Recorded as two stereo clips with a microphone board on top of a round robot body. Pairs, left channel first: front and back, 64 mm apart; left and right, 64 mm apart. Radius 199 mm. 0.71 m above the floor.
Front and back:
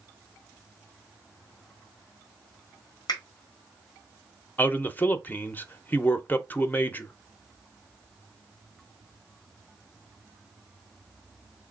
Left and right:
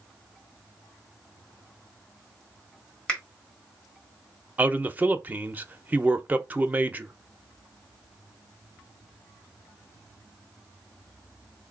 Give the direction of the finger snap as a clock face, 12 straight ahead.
12 o'clock.